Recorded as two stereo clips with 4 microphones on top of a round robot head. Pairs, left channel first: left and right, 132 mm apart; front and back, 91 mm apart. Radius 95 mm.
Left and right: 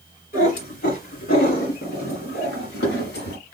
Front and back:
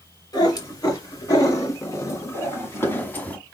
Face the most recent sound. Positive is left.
turn(degrees=75)